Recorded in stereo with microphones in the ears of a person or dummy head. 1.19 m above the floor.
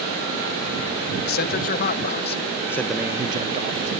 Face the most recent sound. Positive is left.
turn(degrees=-50)  # may be behind; listen again after turning